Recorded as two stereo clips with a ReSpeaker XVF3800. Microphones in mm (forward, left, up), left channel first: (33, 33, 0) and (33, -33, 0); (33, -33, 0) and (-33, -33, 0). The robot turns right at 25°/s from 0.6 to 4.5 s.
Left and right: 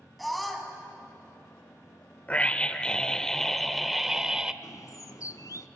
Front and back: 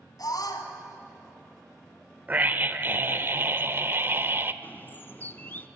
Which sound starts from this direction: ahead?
A scream, at 0.2 s.